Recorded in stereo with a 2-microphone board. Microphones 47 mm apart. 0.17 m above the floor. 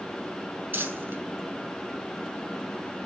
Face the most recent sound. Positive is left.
turn(degrees=-45)  # may be behind; listen again after turning